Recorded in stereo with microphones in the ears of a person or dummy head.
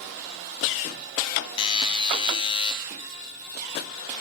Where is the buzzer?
30° left (ahead or behind), 0.6 m.